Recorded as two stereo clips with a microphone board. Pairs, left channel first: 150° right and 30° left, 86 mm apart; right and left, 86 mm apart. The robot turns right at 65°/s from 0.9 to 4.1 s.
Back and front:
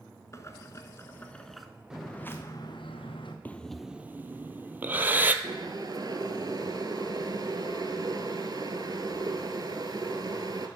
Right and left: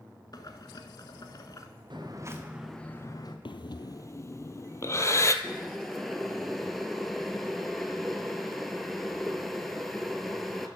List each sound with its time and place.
0.3 s boiling: 105° right, 0.9 m; by 1.7 s 55° right, 0.9 m
1.9 s footsteps: 110° left, 1.7 m; by 3.4 s 120° right, 1.7 m
3.5 s breathing: 80° right, 0.6 m; by 5.3 s 35° right, 0.6 m
5.4 s boiling: 5° right, 1.0 m